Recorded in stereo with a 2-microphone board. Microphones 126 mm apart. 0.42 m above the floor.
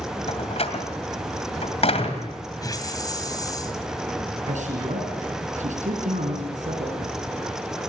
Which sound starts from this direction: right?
A man speaking, at 4.5 s.